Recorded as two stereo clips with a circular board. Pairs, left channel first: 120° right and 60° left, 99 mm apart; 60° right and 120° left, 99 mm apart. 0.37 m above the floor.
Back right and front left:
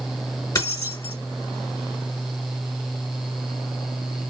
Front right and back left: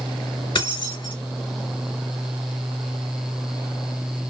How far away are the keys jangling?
About 1.1 m.